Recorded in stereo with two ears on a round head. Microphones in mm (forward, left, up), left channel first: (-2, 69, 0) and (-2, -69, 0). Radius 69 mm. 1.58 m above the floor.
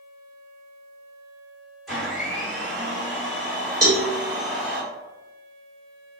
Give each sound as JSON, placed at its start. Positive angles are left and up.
{"t": 1.9, "sound": "a blender", "side_deg": 0, "distance_m": 2.0}
{"t": 3.8, "sound": "a cowbell", "side_deg": -20, "distance_m": 0.8}